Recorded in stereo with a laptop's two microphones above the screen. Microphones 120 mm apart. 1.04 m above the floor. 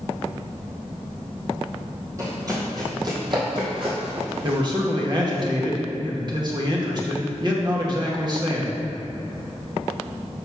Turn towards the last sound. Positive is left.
turn(degrees=-40)  # may be behind; listen again after turning